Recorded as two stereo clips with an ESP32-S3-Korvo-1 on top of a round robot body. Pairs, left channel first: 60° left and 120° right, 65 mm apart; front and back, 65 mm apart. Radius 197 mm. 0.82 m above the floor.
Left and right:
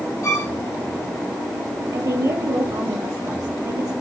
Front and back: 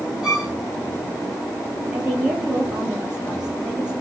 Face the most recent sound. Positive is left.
turn(degrees=-105)